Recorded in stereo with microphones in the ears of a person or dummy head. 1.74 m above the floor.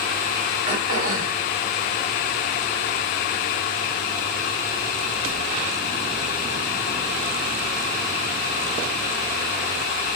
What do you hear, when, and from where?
0.7 s throat clearing: 35° right (ahead or behind), 1.3 m